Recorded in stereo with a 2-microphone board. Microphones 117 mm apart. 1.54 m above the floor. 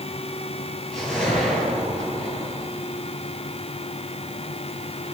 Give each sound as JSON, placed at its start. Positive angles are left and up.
{"t": 0.9, "sound": "a whoosh", "side_deg": 5, "distance_m": 9.5}